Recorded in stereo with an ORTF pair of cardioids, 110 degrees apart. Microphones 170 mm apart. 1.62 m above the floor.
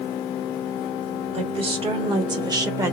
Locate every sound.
1.3 s a woman speaking: 35° right, 2.5 m; by 2.9 s 15° right, 1.2 m